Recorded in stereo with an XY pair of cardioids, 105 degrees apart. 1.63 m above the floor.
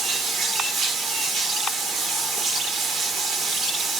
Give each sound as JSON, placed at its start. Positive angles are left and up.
{"t": 0.0, "sound": "running water", "azimuth_deg": -65, "distance_m": 1.5}